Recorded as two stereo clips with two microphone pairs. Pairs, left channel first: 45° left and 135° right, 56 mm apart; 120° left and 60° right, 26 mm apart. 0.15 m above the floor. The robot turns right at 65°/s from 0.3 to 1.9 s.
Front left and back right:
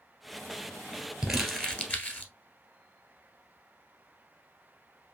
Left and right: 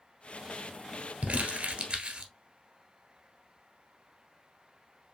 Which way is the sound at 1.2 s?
60° right.